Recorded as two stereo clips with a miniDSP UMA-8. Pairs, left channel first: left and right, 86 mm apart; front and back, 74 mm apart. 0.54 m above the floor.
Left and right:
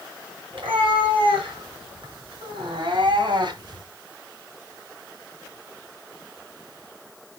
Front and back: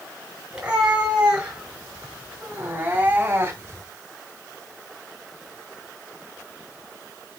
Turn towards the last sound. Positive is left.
turn(degrees=-125)